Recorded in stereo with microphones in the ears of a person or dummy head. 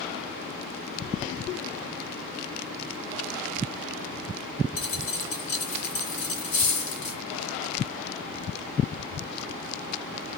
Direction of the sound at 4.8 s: 60° left (ahead or behind).